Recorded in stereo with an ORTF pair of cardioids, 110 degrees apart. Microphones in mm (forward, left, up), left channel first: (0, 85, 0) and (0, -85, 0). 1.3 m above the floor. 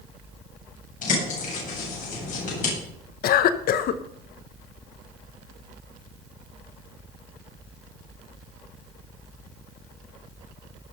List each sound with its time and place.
1.0 s a bird: 50° left, 8.5 m
3.2 s a cough: 65° left, 1.3 m